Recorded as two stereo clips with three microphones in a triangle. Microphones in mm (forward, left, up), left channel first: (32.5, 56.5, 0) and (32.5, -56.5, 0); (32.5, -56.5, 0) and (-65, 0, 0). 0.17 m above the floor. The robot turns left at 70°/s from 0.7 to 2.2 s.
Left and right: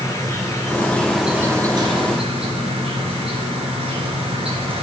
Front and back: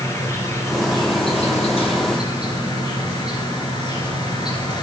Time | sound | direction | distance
0.0 | an insect | 30° left | 2.5 m